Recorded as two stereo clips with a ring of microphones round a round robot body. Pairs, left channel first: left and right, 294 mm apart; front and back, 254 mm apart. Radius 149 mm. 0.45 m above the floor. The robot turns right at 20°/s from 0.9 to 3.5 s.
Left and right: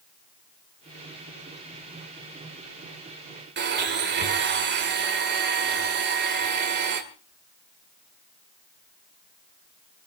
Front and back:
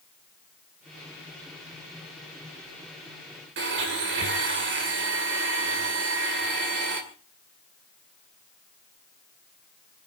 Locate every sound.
3.6 s a blender: 140° right, 2 m